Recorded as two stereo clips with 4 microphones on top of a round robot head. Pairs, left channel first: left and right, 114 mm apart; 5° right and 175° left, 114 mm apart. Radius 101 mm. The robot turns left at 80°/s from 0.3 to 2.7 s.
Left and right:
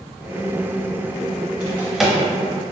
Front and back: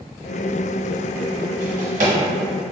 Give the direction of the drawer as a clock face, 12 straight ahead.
5 o'clock.